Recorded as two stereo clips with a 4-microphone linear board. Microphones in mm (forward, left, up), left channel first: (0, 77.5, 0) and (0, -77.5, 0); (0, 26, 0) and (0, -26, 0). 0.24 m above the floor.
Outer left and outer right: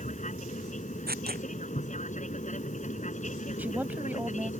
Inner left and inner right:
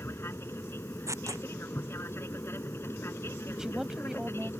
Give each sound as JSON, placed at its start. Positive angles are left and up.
{"t": 0.0, "sound": "an aircraft", "side_deg": 50}
{"t": 1.1, "sound": "tearing paper", "side_deg": -90}
{"t": 3.6, "sound": "a woman speaking", "side_deg": -10}